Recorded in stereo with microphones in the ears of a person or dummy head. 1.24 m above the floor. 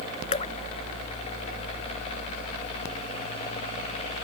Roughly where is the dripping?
Left.